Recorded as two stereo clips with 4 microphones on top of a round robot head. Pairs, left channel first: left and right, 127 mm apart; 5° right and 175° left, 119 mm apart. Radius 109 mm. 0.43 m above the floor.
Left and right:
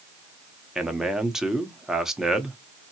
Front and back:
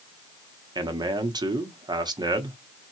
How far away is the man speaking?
About 1.1 m.